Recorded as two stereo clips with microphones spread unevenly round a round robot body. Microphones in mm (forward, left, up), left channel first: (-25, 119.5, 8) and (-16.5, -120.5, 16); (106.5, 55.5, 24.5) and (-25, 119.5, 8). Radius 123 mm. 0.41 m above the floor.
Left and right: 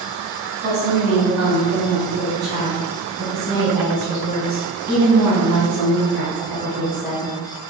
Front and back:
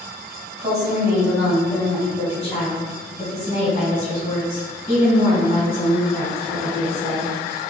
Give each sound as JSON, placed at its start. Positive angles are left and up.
{"t": 0.6, "sound": "a woman speaking", "azimuth_deg": -135, "distance_m": 1.6}